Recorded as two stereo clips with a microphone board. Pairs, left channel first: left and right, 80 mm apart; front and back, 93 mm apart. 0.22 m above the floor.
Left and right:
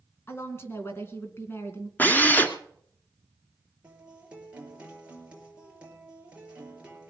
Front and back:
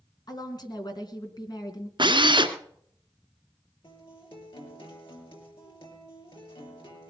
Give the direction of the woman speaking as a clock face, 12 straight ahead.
11 o'clock.